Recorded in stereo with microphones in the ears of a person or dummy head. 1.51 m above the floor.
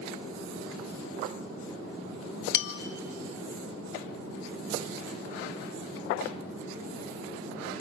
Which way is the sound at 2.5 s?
65° left (ahead or behind).